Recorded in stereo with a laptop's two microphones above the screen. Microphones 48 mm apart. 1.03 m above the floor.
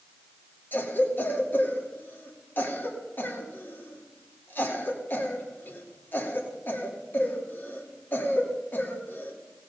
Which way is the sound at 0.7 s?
40° left (ahead or behind).